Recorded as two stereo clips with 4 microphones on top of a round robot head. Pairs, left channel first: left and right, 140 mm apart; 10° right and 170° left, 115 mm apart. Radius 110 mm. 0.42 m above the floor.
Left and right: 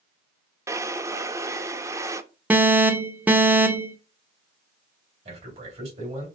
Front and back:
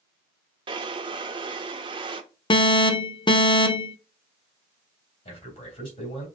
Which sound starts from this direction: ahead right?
A man speaking, at 5.2 s.